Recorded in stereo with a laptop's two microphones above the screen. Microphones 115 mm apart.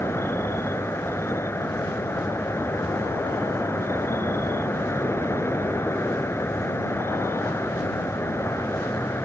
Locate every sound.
0.0 s an insect: 20° left (ahead or behind)